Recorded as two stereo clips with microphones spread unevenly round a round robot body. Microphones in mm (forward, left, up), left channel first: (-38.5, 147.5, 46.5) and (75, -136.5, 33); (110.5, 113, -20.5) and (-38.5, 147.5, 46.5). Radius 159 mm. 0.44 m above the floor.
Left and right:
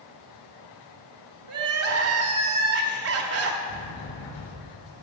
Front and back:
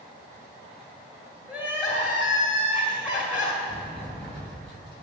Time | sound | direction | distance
1.5 | crying | 95° right | 1.3 m
3.7 | a sliding door | 115° left | 5 m